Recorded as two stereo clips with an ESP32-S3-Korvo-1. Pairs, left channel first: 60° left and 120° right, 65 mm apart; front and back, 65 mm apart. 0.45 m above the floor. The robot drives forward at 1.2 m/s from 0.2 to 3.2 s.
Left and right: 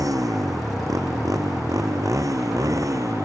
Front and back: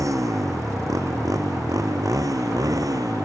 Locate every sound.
0.0 s a motorcycle: 145° right; by 3.2 s 150° right